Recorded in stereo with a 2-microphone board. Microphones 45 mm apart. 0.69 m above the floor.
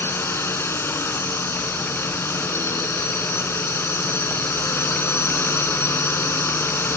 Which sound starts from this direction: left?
A drone, at 0.0 s.